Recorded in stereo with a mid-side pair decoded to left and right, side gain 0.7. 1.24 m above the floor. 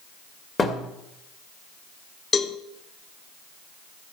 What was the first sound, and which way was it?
A thud, 20° left.